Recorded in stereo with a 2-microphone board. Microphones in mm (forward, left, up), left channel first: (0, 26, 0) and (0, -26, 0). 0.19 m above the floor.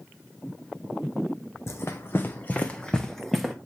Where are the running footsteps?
60° left (ahead or behind), 1.0 m; by 3.5 s centre (ahead or behind), 1.2 m.